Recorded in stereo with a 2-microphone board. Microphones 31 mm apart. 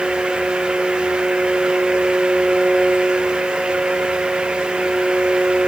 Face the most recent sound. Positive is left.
No sound to turn to.